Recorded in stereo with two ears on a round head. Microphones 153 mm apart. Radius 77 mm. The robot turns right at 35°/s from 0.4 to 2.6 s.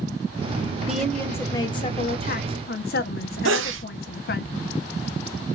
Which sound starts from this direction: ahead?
A woman speaking, at 0.9 s.